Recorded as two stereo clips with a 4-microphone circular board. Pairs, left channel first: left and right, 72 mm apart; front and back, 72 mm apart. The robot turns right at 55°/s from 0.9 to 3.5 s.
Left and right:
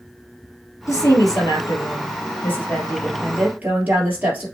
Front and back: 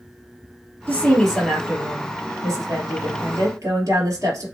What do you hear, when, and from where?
0.9 s a woman speaking: 65° left, 2.5 m; by 4.5 s 150° right, 2.5 m